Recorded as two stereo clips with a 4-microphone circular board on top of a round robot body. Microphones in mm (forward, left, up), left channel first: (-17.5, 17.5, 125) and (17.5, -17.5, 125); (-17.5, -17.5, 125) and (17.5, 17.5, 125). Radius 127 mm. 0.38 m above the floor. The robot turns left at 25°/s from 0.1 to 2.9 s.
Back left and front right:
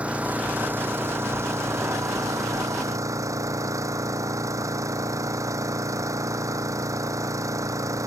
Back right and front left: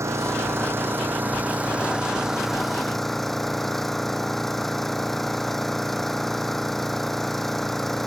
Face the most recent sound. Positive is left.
turn(degrees=-50)